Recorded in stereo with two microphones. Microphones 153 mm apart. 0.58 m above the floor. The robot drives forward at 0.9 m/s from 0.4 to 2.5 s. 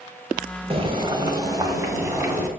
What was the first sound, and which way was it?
Boiling, 40° right (ahead or behind).